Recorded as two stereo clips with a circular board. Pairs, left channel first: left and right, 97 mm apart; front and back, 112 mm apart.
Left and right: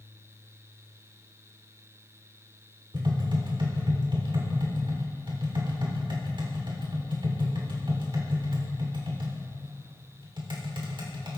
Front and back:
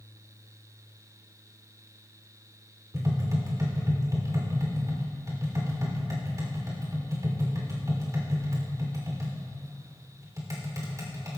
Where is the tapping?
120° right, 3 m.